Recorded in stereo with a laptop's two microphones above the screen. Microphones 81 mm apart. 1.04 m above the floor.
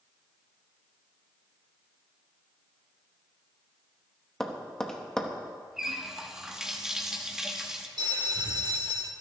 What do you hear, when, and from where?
4.4 s tapping: 10° left (ahead or behind), 0.9 m
5.8 s a running tap: 5° right (ahead or behind), 0.9 m
8.0 s a bell: 60° right (ahead or behind), 1.1 m